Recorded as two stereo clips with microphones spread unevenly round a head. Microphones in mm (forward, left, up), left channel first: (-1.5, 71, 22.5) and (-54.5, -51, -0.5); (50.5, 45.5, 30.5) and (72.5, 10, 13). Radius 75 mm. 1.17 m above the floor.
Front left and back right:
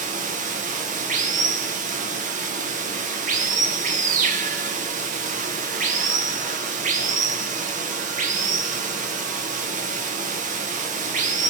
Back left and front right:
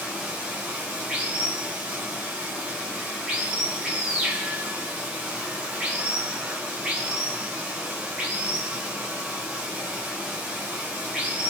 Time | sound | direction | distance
0.0 | running water | 125° right | 0.9 m